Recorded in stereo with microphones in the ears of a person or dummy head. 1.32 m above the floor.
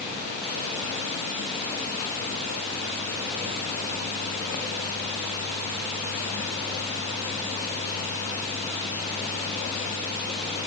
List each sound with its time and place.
Only background noise.